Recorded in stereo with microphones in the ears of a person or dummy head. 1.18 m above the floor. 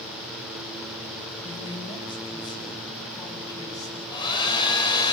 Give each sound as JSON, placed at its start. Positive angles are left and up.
{"t": 1.4, "sound": "a man speaking", "side_deg": 25, "distance_m": 7.0}
{"t": 4.1, "sound": "a hair dryer", "side_deg": 25, "distance_m": 6.0}